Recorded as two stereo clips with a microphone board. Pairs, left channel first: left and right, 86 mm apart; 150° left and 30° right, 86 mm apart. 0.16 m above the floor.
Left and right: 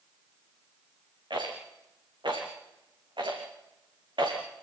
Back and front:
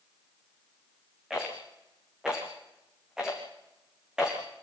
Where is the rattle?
115° right, 5.5 m.